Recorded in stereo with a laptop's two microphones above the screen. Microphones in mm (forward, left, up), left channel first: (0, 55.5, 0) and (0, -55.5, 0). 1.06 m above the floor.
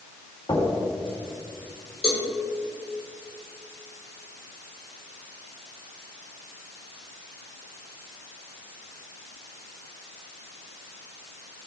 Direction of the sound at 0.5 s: 45° left (ahead or behind).